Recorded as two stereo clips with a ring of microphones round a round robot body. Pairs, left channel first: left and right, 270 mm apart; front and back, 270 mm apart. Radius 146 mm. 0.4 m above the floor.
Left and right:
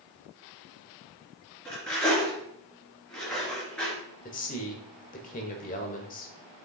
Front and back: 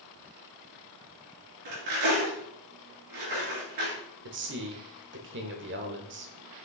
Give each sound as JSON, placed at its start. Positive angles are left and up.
{"t": 1.6, "sound": "cutlery clinking", "azimuth_deg": 175, "distance_m": 3.5}
{"t": 4.2, "sound": "a man speaking", "azimuth_deg": 145, "distance_m": 1.2}